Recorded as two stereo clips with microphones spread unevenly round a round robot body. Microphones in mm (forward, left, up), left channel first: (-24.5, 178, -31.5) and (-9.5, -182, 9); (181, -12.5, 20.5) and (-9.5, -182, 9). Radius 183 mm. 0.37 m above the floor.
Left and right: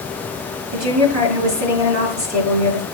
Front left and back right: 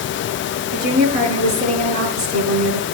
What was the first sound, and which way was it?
A woman speaking, 135° right.